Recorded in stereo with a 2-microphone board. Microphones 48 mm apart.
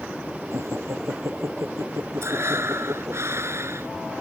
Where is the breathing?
65° right (ahead or behind).